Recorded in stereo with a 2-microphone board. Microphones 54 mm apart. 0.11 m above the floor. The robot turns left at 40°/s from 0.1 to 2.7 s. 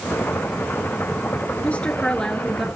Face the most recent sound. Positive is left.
turn(degrees=0)